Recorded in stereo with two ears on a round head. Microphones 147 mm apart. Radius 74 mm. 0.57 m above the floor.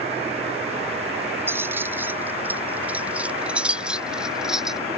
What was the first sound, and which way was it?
Keys jangling, 15° right (ahead or behind).